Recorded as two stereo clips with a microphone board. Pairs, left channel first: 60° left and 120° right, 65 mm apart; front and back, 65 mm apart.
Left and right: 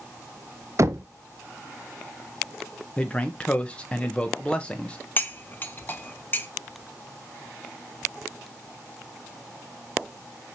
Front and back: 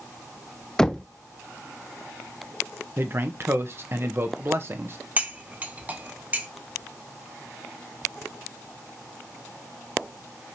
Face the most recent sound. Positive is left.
turn(degrees=115)